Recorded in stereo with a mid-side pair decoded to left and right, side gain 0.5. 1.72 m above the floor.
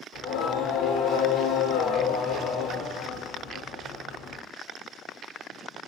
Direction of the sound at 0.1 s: 70° left.